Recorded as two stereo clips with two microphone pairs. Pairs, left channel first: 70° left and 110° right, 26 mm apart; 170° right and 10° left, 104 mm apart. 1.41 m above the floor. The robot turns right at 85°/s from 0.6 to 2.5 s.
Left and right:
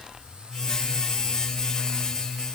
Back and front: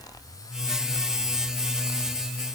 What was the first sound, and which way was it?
Only background noise.